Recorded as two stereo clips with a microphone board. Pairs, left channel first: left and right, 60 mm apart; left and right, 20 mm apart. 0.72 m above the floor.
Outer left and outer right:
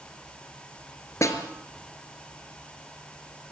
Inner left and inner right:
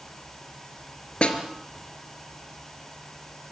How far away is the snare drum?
About 3 m.